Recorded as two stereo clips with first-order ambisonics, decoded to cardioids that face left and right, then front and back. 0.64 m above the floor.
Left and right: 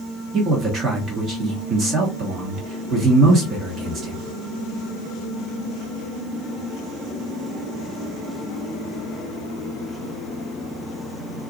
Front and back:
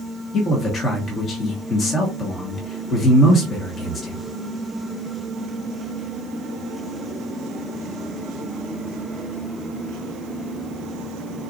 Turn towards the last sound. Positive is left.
turn(degrees=-50)